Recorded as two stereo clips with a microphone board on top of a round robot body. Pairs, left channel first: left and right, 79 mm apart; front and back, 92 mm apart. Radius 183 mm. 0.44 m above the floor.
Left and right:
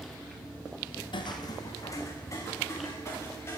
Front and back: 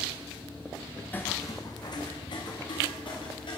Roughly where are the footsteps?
Left.